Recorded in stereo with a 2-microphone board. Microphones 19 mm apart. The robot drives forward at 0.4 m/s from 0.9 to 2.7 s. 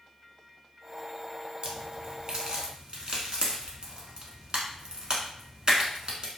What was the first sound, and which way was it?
A crack, 60° right (ahead or behind).